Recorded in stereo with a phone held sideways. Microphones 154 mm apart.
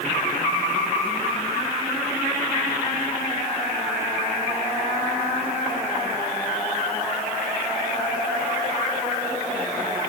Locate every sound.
Only background noise.